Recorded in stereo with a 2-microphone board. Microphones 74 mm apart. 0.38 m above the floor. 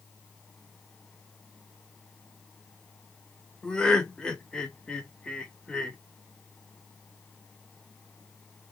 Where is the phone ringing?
No phone ringing in this recording.